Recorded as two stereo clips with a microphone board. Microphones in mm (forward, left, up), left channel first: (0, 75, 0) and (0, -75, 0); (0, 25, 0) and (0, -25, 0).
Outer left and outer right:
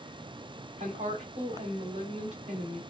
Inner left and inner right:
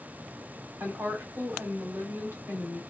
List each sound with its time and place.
0.8 s a woman speaking: 55° right (ahead or behind), 2.0 m